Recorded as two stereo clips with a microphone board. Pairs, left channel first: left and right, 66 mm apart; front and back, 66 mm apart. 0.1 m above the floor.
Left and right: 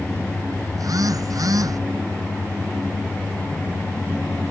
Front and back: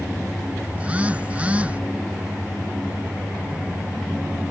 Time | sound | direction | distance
0.7 | a phone buzzing | 110° right | ?